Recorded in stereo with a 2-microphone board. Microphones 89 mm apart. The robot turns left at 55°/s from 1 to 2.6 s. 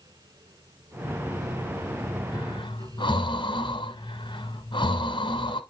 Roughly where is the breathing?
Left.